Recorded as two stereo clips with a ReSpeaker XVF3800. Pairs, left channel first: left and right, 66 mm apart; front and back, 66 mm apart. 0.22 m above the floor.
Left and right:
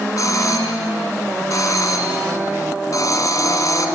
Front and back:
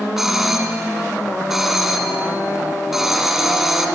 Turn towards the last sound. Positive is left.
turn(degrees=95)